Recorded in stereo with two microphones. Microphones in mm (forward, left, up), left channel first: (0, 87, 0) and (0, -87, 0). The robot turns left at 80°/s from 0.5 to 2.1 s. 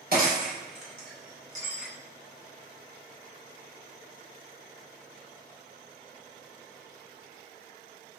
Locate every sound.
0.1 s breaking glass: 65° right (ahead or behind), 3 m; by 1.9 s centre (ahead or behind), 3 m